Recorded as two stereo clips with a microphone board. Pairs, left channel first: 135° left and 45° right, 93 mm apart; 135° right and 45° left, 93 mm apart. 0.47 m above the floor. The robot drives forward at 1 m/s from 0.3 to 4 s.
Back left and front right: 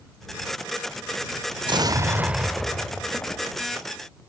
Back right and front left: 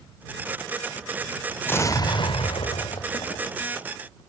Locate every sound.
1.6 s an explosion: 65° right, 0.8 m; by 4.2 s 160° right, 2 m